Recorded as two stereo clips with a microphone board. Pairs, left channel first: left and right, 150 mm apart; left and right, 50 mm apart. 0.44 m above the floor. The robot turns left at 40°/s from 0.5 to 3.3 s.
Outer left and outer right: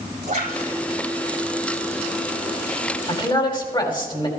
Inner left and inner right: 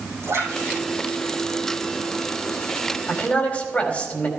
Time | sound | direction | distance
0.2 | a splash | 85° right | 6 m
3.1 | a man speaking | 40° left (ahead or behind) | 2.5 m